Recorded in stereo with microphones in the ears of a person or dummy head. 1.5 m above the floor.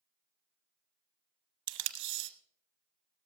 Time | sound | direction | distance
1.7 | tape being pulled | 65° right (ahead or behind) | 0.9 m